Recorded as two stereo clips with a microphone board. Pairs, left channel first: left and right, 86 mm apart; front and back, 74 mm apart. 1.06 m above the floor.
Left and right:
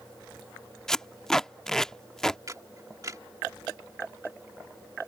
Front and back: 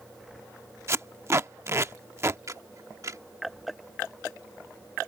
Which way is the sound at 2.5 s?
140° right.